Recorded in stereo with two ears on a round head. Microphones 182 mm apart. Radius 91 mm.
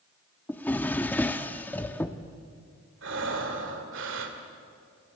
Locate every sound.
0.5 s a drawer: 10° left (ahead or behind), 1.0 m
3.0 s breathing: 65° right (ahead or behind), 2.5 m